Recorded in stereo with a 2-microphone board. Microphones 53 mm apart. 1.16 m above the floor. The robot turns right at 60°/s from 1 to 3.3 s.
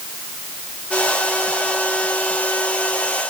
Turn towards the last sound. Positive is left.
No sound to turn to.